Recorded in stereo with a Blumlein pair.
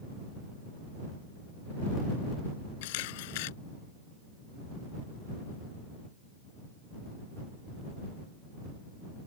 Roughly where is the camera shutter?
Ahead left.